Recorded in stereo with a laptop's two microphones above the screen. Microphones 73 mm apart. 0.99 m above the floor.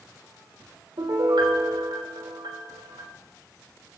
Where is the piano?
85° right, 3.5 m.